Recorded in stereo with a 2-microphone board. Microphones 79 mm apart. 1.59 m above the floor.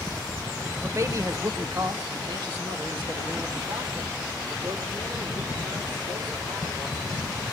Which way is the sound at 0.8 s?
30° right (ahead or behind).